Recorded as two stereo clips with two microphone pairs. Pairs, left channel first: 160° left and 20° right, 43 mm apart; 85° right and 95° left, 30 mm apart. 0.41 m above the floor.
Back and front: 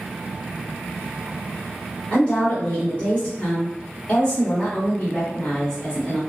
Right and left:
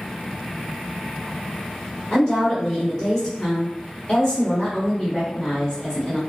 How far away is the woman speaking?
About 2.0 m.